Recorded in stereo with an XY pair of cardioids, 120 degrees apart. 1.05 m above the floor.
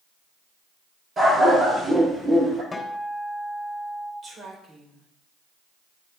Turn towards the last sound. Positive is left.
turn(degrees=-30)